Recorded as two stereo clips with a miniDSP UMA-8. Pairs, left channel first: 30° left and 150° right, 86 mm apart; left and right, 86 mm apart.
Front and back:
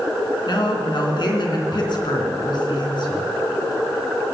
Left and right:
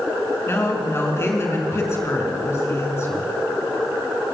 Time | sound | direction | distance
0.5 | a woman speaking | 35° left | 3 m